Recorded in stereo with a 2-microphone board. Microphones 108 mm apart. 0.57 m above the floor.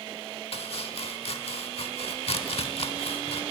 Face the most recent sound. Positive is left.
turn(degrees=65)  # may be behind; listen again after turning